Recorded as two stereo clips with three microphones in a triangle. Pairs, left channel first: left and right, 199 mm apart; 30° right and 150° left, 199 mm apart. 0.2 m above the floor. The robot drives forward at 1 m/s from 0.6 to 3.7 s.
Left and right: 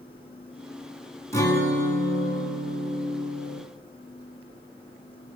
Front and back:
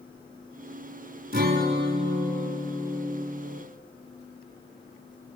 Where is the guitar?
160° left, 2.5 m; by 3.6 s 170° left, 4 m.